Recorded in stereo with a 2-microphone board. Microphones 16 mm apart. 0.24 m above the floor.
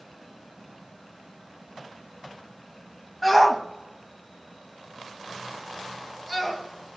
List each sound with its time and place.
3.2 s a shout: centre (ahead or behind), 1.2 m